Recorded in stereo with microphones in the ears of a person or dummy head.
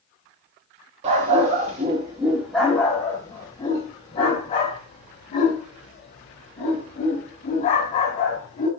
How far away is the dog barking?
About 1.2 m.